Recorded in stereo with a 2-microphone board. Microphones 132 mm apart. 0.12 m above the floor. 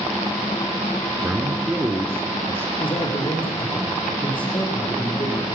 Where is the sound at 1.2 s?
20° right (ahead or behind), 1.4 m.